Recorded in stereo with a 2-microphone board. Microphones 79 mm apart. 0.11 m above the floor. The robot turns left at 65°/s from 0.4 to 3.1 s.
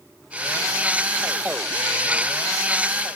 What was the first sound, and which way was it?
Only background noise.